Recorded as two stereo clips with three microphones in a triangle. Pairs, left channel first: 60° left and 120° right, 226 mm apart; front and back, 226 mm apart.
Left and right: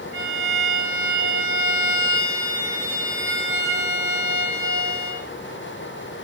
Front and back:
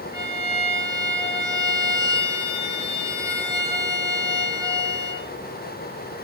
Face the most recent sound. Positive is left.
turn(degrees=-105)